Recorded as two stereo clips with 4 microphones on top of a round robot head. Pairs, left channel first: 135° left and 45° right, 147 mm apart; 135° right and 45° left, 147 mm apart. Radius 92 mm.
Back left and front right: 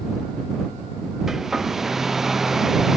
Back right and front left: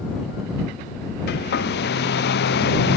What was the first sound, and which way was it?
A hair dryer, 135° right.